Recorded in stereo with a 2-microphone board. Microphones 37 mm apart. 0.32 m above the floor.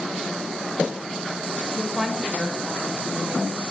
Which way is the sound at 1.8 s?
15° left (ahead or behind).